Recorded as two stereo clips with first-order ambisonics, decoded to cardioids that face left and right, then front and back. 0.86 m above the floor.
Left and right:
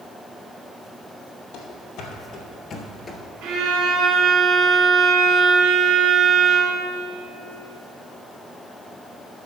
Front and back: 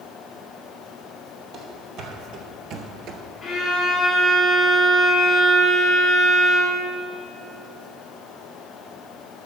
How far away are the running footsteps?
About 1.6 m.